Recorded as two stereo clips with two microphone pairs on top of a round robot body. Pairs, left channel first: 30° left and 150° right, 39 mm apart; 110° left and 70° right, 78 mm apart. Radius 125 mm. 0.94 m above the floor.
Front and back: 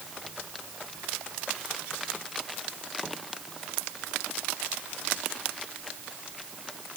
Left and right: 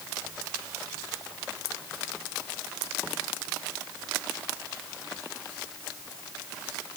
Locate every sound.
Only background noise.